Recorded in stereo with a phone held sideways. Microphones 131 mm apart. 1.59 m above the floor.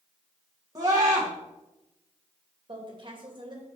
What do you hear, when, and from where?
0.8 s a scream: 30° right (ahead or behind), 1.7 m
2.7 s a woman speaking: 35° right (ahead or behind), 2 m